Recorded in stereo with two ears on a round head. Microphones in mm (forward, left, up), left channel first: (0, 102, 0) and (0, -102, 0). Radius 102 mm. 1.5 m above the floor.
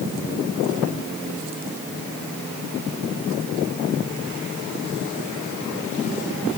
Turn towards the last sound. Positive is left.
No sound to turn to.